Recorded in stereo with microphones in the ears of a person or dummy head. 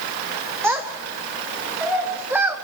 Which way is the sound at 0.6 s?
5° right (ahead or behind).